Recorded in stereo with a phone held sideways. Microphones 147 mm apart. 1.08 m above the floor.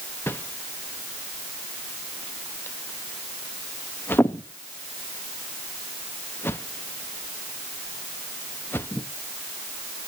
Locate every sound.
0.3 s a whoosh: 15° left (ahead or behind), 0.7 m